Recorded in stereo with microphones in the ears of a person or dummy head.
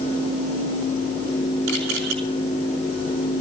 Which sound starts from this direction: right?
A camera shutter, at 1.7 s.